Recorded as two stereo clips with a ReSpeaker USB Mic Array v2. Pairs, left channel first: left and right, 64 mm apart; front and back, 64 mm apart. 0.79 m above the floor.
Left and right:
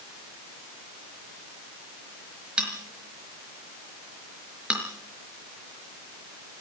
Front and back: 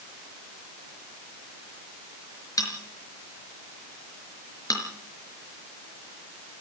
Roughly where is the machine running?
No machine running in this recording.